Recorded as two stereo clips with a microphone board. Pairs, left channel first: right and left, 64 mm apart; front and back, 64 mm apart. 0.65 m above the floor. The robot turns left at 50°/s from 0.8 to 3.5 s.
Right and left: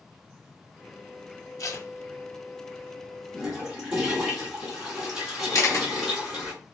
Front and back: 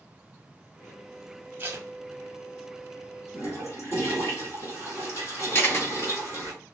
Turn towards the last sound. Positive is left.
turn(degrees=-50)